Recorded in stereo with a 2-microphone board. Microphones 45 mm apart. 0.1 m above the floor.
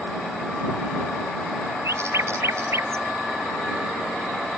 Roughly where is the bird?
Right.